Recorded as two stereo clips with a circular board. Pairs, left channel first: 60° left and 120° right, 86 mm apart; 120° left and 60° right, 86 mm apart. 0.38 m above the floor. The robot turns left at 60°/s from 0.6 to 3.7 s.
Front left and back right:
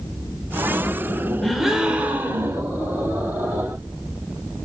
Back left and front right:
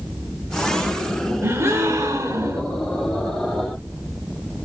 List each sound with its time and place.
1.4 s a gasp: 25° right, 0.5 m; by 2.6 s 95° right, 0.5 m